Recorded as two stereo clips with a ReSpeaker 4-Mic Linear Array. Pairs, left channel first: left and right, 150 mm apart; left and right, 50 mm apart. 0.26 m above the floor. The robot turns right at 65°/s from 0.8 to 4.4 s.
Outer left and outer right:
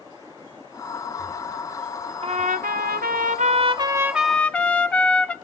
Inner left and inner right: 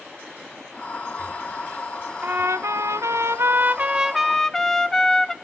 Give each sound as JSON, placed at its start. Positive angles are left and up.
{"t": 2.2, "sound": "a trumpet", "azimuth_deg": -135, "distance_m": 0.7}